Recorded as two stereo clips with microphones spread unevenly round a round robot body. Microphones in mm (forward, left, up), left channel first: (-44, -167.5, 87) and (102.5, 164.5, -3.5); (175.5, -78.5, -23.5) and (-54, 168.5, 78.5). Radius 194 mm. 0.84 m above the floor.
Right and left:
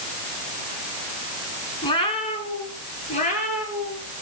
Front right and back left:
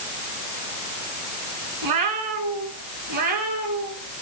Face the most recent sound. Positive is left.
turn(degrees=175)